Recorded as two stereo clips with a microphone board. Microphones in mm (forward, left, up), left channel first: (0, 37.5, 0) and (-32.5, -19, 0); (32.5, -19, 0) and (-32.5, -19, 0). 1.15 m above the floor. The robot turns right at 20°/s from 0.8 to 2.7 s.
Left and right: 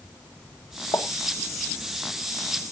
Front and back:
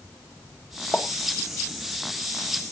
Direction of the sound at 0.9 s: 80° left.